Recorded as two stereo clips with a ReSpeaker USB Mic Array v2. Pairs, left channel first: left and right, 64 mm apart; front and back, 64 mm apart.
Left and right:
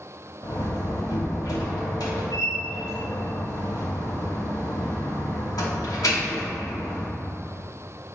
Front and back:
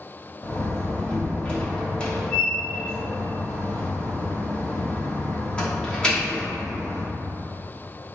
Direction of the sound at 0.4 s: 75° left.